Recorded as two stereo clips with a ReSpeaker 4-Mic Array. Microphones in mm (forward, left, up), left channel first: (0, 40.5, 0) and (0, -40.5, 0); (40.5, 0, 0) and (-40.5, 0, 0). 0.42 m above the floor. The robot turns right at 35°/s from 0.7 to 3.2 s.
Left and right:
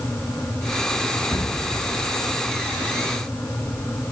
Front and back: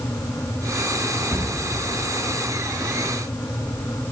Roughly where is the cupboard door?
Behind left.